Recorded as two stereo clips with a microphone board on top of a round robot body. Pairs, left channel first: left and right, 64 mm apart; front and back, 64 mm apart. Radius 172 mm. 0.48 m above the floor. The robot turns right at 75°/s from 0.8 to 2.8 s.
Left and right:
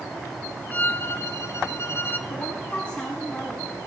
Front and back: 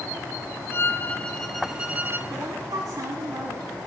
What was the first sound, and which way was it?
A violin, 35° left.